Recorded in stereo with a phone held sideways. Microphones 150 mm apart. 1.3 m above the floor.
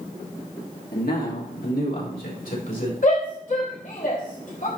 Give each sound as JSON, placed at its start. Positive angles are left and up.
{"t": 0.9, "sound": "a man speaking", "side_deg": 85, "distance_m": 2.5}
{"t": 3.0, "sound": "a shout", "side_deg": 60, "distance_m": 3.5}